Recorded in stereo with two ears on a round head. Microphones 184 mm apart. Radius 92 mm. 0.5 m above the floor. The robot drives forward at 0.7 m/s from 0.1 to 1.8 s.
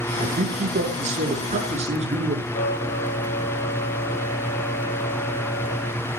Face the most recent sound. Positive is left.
turn(degrees=55)  # may be behind; listen again after turning